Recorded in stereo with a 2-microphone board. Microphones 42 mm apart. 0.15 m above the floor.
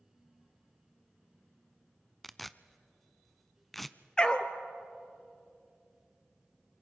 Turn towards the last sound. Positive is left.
turn(degrees=20)  # may be behind; listen again after turning